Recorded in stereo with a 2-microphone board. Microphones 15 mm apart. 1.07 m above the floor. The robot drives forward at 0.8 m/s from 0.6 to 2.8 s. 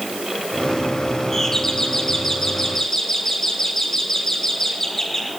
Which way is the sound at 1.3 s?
25° left (ahead or behind).